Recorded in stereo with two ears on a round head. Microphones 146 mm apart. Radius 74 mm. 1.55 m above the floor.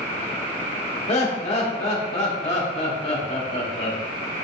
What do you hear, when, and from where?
1.1 s laughter: 40° left (ahead or behind), 1.1 m